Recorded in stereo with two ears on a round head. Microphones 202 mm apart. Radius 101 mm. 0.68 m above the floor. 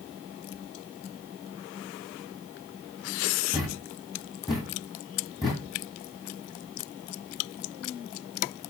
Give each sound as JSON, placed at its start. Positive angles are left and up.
{"t": 3.5, "sound": "a thud", "side_deg": 0, "distance_m": 1.3}